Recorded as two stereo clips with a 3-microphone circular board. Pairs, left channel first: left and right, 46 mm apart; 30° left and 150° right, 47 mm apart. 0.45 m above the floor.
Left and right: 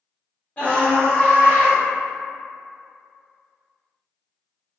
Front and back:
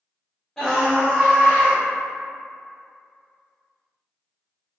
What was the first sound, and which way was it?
A scream, 105° left.